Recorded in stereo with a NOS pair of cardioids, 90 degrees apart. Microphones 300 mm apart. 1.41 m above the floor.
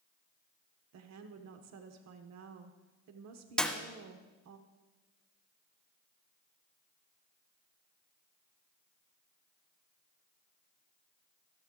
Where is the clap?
5° left, 1.4 m.